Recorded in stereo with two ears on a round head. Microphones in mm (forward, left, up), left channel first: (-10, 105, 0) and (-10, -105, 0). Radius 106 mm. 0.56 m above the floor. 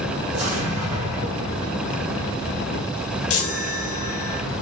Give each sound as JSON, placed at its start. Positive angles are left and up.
{"t": 0.3, "sound": "an explosion", "side_deg": -30, "distance_m": 1.9}
{"t": 3.3, "sound": "a chime", "side_deg": 60, "distance_m": 0.8}